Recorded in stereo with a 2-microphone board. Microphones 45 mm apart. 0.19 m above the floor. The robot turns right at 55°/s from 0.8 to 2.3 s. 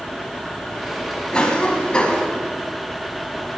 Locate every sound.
1.3 s a cough: 20° left (ahead or behind), 1.4 m